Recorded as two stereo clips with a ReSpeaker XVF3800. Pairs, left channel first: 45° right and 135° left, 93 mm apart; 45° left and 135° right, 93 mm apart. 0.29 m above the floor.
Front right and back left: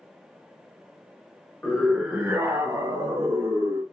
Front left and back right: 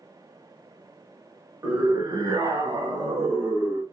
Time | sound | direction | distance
1.6 | a scream | 115° right | 1.1 m